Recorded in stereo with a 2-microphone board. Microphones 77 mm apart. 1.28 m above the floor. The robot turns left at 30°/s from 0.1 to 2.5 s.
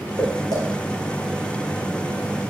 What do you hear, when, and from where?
0.2 s footsteps: 45° right (ahead or behind), 5 m; by 2.5 s 50° right (ahead or behind), 5.5 m